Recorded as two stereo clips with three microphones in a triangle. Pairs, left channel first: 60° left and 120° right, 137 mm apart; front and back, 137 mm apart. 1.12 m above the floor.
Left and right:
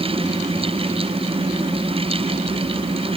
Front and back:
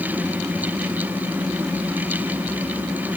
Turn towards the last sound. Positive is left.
No sound to turn to.